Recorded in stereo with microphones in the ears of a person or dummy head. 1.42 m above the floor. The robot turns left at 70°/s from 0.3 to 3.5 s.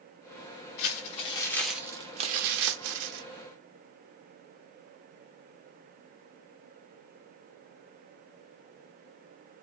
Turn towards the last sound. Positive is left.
turn(degrees=-125)